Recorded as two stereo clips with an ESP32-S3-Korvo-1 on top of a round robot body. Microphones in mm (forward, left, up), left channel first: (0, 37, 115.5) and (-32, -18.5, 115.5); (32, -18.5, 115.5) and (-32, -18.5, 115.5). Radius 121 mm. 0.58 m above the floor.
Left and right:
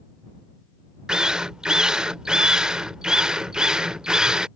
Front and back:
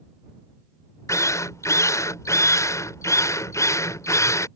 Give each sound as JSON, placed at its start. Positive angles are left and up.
{"t": 1.1, "sound": "a drill", "azimuth_deg": -40}